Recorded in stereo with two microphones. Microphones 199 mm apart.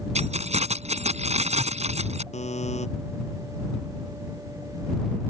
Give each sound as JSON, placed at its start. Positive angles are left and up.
{"t": 0.1, "sound": "keys jangling", "side_deg": -35}
{"t": 2.3, "sound": "a buzzer", "side_deg": 35}